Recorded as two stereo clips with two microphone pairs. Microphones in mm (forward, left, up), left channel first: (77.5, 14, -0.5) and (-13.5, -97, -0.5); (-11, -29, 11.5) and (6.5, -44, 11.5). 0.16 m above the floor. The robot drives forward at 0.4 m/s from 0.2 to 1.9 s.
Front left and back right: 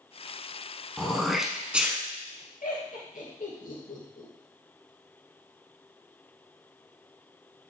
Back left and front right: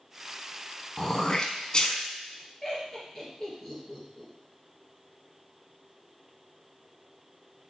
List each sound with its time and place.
1.0 s throat clearing: 135° left, 0.9 m; by 2.0 s 155° left, 1.1 m
2.6 s laughter: 60° left, 2.5 m